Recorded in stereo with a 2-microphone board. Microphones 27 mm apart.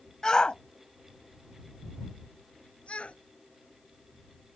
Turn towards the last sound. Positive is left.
turn(degrees=50)  # may be behind; listen again after turning